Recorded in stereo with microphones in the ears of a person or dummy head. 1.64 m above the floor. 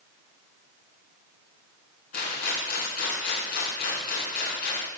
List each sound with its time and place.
2.1 s a rattle: 50° left (ahead or behind), 3.5 m